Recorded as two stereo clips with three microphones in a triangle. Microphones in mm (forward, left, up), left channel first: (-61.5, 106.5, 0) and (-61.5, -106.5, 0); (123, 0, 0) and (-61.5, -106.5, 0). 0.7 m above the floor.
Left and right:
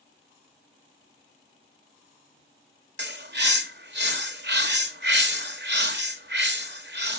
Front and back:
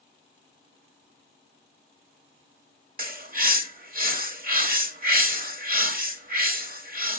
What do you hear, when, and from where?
3.0 s a bird: 110° right, 1.0 m